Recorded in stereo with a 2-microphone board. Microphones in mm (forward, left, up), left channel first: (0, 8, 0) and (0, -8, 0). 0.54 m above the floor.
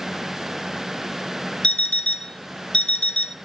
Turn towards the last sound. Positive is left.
turn(degrees=80)